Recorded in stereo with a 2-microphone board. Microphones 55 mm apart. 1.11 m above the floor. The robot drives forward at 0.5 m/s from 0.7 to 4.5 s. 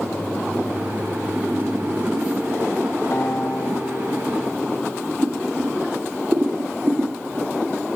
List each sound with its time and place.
3.1 s a guitar: 55° left (ahead or behind), 1.1 m
5.2 s boiling: 40° right (ahead or behind), 7.5 m